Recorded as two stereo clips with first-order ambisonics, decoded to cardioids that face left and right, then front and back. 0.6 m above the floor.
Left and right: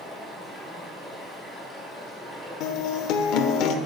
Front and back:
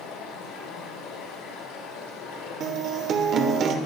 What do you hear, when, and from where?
0.0 s running water: 5° left, 3.5 m
2.6 s a guitar: 120° left, 1.0 m